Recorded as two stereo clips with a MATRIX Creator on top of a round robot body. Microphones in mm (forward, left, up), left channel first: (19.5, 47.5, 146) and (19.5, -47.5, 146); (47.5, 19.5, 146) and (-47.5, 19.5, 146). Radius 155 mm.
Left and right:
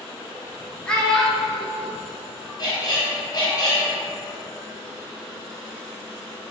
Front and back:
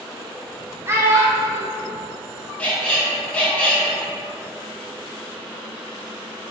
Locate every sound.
0.9 s a child speaking: 160° left, 0.8 m
2.6 s a squeak: 70° left, 1.1 m